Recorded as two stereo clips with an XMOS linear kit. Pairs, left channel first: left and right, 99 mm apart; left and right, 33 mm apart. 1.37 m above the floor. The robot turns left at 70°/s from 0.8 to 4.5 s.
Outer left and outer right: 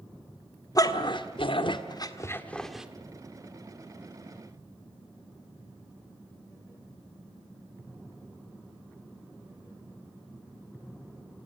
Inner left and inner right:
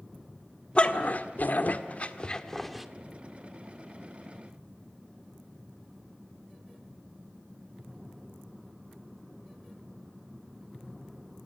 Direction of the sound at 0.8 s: 35° left (ahead or behind).